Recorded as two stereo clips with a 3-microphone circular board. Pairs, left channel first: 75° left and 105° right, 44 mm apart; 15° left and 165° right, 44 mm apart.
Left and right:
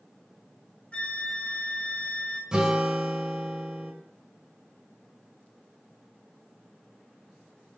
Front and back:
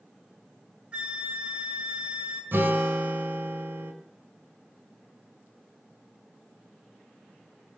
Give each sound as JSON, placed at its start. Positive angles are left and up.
{"t": 0.9, "sound": "a flute", "azimuth_deg": 135, "distance_m": 1.7}
{"t": 2.5, "sound": "a guitar", "azimuth_deg": -175, "distance_m": 2.0}